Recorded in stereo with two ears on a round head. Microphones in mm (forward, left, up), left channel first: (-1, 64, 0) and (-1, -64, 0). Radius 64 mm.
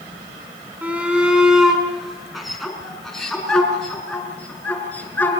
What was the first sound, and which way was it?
A shout, 10° right (ahead or behind).